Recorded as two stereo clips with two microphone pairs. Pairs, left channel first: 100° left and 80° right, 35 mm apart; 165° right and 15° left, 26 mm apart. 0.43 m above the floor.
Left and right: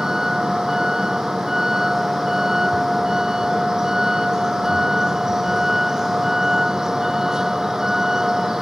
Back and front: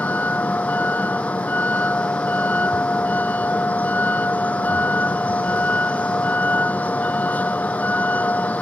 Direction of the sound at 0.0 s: 150° right.